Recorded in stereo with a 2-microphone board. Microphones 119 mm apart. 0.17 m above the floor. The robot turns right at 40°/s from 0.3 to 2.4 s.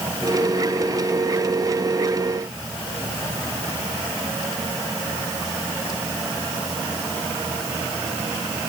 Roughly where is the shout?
No shout in this recording.